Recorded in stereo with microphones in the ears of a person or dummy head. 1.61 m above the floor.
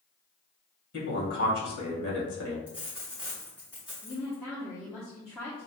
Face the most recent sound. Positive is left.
turn(degrees=10)  # may be behind; listen again after turning